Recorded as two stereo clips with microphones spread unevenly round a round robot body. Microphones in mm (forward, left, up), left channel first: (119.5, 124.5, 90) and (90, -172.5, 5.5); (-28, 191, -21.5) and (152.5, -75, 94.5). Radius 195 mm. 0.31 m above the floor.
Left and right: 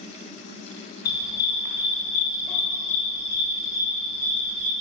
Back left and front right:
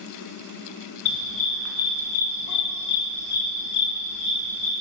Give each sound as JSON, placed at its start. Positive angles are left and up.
{"t": 1.1, "sound": "a dog barking", "azimuth_deg": 80, "distance_m": 1.8}